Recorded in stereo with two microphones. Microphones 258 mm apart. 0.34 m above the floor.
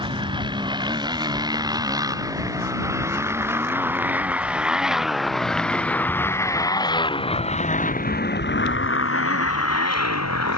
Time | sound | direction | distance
0.0 | a motorcycle | 20° right (ahead or behind) | ?